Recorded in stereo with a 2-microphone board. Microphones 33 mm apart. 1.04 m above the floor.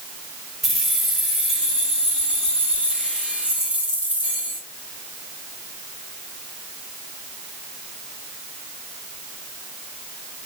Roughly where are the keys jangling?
Centre.